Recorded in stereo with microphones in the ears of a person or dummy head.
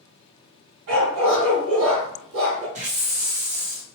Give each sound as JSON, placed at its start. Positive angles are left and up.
{"t": 0.9, "sound": "a dog barking", "side_deg": -65, "distance_m": 1.8}
{"t": 2.8, "sound": "a hiss", "side_deg": -40, "distance_m": 0.7}